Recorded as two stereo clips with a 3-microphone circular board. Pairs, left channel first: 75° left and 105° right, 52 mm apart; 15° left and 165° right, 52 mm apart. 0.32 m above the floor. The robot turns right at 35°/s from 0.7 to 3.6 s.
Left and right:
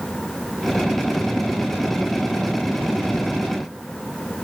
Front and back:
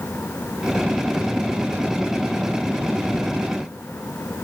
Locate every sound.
Only background noise.